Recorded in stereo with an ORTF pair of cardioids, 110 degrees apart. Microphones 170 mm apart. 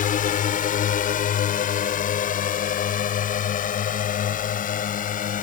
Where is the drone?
55° left.